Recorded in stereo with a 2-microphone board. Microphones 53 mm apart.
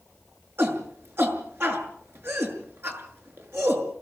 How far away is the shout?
About 6.5 m.